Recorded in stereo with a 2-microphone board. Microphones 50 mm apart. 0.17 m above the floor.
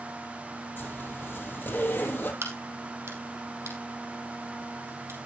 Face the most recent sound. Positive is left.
turn(degrees=-70)  # may be behind; listen again after turning